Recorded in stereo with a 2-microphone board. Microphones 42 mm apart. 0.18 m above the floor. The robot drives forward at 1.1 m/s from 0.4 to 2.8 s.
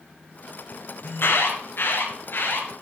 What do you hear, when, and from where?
1.0 s an alarm: 60° left (ahead or behind), 4 m; by 2.8 s 50° left (ahead or behind), 4.5 m